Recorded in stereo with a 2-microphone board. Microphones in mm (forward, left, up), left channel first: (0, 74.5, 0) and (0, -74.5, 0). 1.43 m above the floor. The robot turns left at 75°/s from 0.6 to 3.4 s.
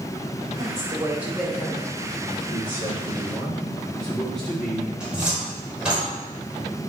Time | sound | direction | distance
0.6 | a woman speaking | 125° right | 3 m
2.5 | a man speaking | 70° left | 4 m
5.0 | a cupboard door | 5° right (ahead or behind) | 4 m